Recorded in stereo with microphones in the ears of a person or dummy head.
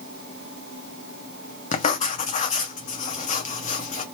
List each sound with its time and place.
1.7 s writing: 40° left (ahead or behind), 0.7 m